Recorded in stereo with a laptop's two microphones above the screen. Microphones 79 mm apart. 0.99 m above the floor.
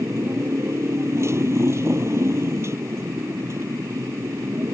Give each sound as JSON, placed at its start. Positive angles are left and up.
{"t": 0.0, "sound": "a motorcycle", "side_deg": -35}